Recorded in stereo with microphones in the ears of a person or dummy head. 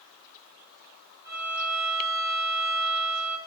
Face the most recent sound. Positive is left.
turn(degrees=-45)  # may be behind; listen again after turning